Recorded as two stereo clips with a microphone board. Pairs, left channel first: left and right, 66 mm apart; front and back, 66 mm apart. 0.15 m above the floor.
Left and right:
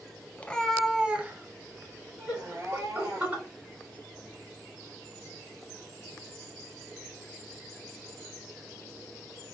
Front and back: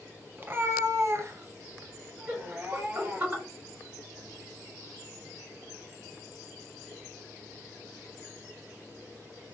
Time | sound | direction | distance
0.4 | a cat meowing | 145° left | 0.5 m
2.3 | laughter | 130° right | 2.0 m